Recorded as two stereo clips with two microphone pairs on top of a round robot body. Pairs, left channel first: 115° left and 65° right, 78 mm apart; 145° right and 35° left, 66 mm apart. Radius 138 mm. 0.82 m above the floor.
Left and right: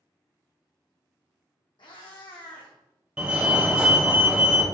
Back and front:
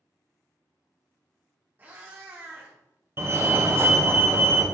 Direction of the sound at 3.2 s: 25° left.